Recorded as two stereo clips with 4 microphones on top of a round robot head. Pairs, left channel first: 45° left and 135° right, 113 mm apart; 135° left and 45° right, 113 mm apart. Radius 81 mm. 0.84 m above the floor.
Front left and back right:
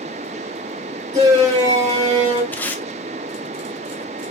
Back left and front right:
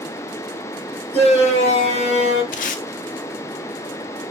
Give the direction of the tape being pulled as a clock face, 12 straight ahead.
8 o'clock.